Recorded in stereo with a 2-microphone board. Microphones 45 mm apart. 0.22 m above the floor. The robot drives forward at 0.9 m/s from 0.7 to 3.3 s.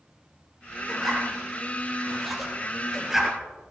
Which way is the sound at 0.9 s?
Centre (ahead or behind).